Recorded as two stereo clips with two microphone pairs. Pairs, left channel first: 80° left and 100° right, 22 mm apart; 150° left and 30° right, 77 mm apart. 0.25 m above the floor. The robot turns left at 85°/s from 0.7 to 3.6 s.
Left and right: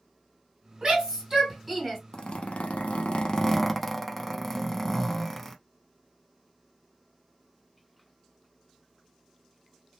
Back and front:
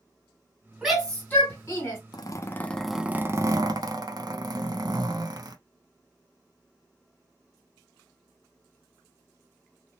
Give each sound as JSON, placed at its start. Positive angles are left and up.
{"t": 0.8, "sound": "a shout", "azimuth_deg": -110, "distance_m": 1.7}
{"t": 2.1, "sound": "a zipper", "azimuth_deg": 125, "distance_m": 0.6}